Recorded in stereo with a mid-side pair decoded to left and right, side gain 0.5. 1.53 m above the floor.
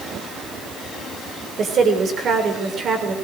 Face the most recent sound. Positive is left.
turn(degrees=-50)